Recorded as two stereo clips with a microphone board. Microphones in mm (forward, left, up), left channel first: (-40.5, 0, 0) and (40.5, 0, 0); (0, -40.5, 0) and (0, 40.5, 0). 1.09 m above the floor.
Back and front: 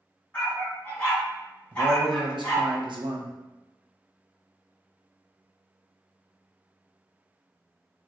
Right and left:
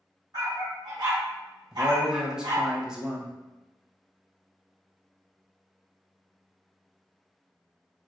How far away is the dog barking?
About 2.0 m.